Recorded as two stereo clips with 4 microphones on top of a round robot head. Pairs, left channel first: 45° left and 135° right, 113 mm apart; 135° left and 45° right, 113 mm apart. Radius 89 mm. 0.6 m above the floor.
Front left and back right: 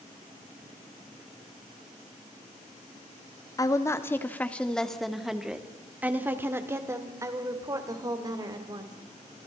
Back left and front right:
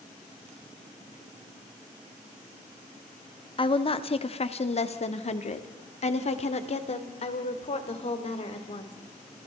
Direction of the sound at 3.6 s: 100° left.